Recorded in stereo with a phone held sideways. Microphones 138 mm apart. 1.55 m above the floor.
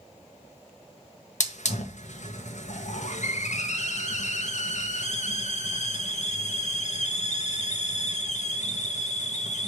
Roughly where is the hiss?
Left.